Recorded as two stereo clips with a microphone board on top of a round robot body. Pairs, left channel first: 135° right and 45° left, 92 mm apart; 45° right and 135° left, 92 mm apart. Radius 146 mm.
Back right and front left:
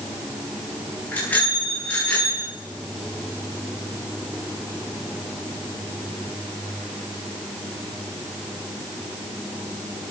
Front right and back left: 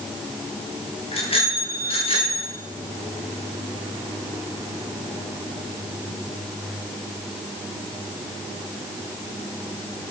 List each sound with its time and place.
1.1 s a bicycle bell: 60° right, 8.5 m